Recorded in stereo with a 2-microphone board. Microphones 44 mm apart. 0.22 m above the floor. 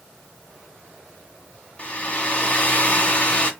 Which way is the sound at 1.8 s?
30° left (ahead or behind).